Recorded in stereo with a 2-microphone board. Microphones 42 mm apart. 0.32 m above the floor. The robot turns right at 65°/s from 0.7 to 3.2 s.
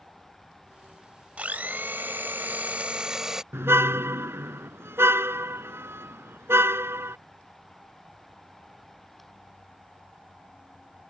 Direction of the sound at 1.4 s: 135° right.